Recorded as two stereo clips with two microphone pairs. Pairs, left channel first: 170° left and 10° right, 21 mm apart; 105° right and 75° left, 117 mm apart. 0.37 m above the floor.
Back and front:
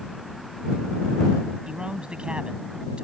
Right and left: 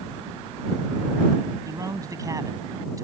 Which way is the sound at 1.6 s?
20° left.